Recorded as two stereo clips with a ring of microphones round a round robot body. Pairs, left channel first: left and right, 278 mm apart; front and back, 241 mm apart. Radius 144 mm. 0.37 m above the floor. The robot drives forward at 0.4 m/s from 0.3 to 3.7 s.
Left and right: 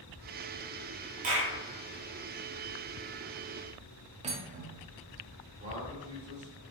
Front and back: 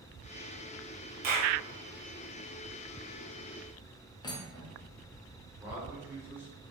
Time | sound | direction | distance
1.2 | a clap | 140° right | 1.1 m
4.2 | cutlery clinking | 55° right | 0.5 m
5.6 | a man speaking | 110° right | 1.3 m